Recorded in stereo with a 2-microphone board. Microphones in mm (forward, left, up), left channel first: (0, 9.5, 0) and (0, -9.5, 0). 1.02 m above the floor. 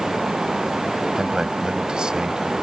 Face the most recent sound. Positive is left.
turn(degrees=-50)  # may be behind; listen again after turning